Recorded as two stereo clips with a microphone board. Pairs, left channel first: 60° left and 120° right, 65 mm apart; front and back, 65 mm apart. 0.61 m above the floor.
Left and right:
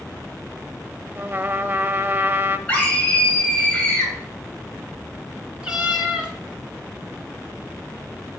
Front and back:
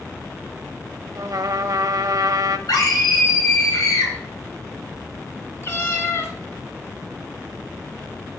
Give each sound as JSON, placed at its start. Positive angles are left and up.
{"t": 1.1, "sound": "a trumpet", "azimuth_deg": -175, "distance_m": 0.5}
{"t": 2.7, "sound": "a scream", "azimuth_deg": -10, "distance_m": 3.0}
{"t": 5.6, "sound": "a cat meowing", "azimuth_deg": -45, "distance_m": 1.4}